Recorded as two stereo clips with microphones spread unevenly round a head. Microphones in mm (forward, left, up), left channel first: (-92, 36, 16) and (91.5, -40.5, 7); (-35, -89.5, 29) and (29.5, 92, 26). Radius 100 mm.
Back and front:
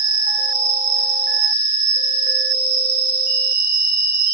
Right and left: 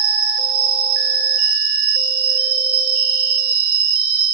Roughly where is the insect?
Ahead left.